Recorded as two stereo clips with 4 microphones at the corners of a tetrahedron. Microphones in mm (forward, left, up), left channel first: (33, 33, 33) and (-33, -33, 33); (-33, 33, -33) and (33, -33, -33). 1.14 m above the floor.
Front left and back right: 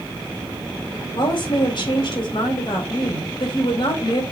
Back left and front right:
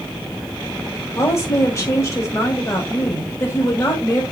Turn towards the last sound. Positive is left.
turn(degrees=80)